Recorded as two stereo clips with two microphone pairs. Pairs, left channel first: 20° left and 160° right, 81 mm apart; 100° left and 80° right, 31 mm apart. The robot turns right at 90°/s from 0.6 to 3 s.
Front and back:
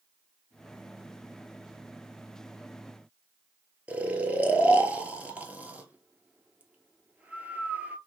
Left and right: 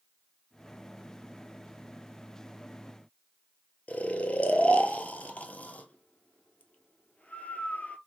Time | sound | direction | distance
3.9 | snoring | 130° left | 0.8 m